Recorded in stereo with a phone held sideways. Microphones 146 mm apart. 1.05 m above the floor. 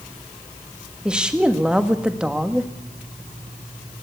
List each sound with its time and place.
1.1 s a woman speaking: 5° right (ahead or behind), 1.5 m